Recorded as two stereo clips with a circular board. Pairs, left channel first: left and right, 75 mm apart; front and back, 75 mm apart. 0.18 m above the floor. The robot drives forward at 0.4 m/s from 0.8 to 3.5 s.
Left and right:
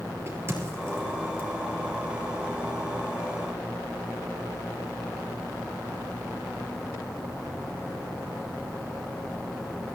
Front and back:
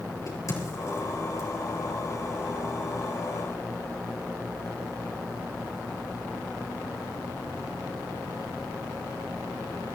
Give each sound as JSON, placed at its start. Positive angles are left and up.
{"t": 0.3, "sound": "a crack", "azimuth_deg": -35, "distance_m": 4.5}